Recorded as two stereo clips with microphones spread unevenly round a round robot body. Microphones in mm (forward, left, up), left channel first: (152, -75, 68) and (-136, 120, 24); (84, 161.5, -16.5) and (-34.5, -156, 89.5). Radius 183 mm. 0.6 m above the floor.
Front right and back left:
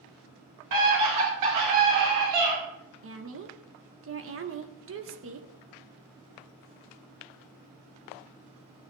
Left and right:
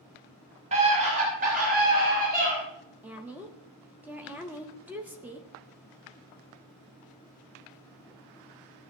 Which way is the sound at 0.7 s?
170° left.